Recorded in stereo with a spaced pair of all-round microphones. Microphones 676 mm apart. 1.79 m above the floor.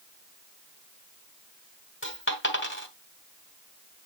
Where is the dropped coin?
15° left (ahead or behind), 2.5 m.